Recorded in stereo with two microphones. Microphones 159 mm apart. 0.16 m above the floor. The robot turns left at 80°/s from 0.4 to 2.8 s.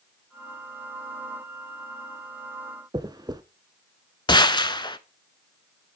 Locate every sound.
2.9 s a dropped coin: 25° right (ahead or behind), 0.7 m
4.3 s a gunshot: 30° left (ahead or behind), 0.6 m